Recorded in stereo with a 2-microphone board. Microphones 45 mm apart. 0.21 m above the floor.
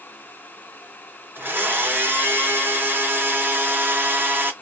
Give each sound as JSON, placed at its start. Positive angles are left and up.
{"t": 1.4, "sound": "a blender", "side_deg": -45, "distance_m": 2.0}